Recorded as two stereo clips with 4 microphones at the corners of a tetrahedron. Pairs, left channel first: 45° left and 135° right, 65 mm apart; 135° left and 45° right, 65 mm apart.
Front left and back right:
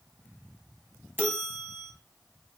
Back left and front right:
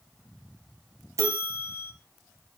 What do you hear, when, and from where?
1.2 s a bell: 80° right, 2.0 m